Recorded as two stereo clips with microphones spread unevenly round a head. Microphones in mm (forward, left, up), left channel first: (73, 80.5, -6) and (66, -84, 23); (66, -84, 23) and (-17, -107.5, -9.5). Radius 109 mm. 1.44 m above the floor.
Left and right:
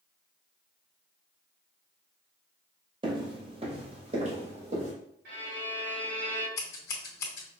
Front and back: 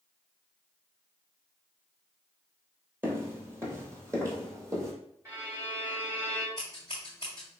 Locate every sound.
3.0 s footsteps: 85° right, 1.8 m; by 4.9 s 100° right, 2.5 m
5.2 s a violin: 105° right, 2 m
6.6 s scissors: 115° left, 1.8 m